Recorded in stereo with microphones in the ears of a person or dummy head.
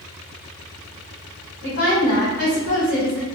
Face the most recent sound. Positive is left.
turn(degrees=50)  # may be behind; listen again after turning